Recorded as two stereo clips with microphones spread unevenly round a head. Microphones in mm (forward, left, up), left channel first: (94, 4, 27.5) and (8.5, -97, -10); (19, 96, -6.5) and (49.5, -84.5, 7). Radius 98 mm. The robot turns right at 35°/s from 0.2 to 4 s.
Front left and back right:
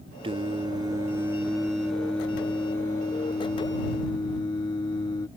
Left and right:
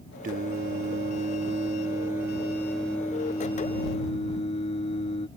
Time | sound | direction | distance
0.2 | singing | 80° right | ?